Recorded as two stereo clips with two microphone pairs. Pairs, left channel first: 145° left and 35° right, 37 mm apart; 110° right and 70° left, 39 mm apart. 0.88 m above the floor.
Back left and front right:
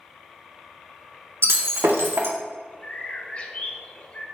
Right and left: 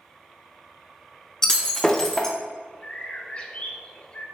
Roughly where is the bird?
Behind.